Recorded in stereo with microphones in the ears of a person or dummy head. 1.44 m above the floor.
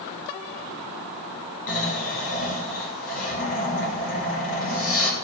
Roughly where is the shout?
No shout in this recording.